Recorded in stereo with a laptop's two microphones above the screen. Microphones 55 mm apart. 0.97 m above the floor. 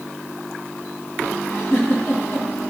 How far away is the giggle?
About 2 m.